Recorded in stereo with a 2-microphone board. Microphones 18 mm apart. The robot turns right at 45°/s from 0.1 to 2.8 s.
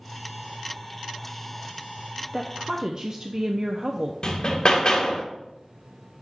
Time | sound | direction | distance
2.3 | a woman speaking | 15° right (ahead or behind) | 0.5 m
4.2 | hammering | 45° left (ahead or behind) | 1.2 m